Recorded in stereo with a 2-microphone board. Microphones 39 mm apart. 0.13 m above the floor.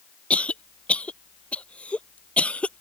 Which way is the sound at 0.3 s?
35° left (ahead or behind).